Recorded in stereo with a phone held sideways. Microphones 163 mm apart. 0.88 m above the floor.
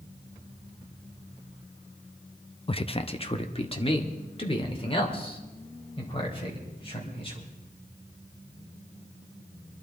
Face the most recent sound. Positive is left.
turn(degrees=35)  # may be behind; listen again after turning